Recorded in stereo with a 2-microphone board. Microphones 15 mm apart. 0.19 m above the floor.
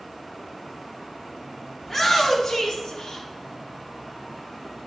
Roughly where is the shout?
Centre.